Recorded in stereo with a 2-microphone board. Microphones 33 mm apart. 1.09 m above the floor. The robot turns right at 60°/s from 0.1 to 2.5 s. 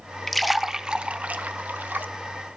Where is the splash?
10° left (ahead or behind), 0.5 m; by 2.1 s 65° right (ahead or behind), 0.5 m.